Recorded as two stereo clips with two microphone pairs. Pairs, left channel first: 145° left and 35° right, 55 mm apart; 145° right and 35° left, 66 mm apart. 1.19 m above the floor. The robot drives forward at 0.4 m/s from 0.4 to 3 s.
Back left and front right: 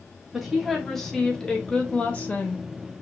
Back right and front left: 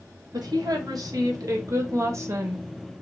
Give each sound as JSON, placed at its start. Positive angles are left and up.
{"t": 0.3, "sound": "a woman speaking", "azimuth_deg": 50, "distance_m": 1.4}